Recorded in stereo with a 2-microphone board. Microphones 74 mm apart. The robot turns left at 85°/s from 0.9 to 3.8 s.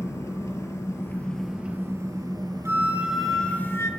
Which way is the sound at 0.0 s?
45° left.